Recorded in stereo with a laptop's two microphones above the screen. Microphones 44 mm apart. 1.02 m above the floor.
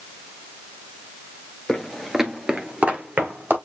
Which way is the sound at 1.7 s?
10° left (ahead or behind).